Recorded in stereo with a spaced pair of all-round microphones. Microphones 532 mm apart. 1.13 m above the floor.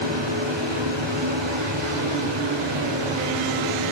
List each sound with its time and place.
0.0 s a fan: 55° right (ahead or behind), 3.5 m